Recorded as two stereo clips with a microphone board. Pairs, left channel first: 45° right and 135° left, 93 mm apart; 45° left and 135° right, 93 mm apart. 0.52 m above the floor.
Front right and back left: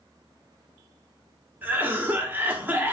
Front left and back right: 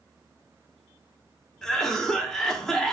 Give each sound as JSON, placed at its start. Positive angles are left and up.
{"t": 1.6, "sound": "a cough", "azimuth_deg": 120, "distance_m": 0.7}